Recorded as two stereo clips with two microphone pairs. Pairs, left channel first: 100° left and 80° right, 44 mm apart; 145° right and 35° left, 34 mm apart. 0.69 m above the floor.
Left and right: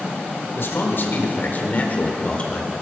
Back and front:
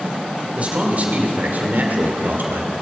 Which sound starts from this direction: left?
A man speaking, at 0.6 s.